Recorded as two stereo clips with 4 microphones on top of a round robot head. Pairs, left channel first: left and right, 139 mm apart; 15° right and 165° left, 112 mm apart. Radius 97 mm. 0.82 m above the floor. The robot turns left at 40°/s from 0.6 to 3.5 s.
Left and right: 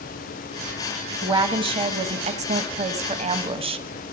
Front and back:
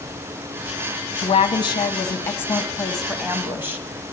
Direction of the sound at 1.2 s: 35° right.